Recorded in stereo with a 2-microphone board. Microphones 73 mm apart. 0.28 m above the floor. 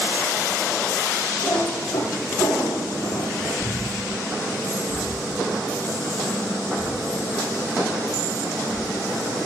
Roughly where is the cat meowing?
Left.